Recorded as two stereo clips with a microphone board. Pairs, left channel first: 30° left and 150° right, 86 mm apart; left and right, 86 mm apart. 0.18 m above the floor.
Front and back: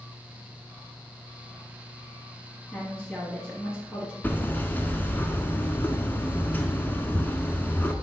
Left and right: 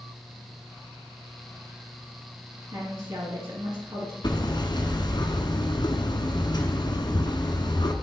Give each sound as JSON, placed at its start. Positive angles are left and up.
{"t": 2.7, "sound": "a woman speaking", "azimuth_deg": -70, "distance_m": 2.5}
{"t": 4.2, "sound": "hammering", "azimuth_deg": 95, "distance_m": 0.9}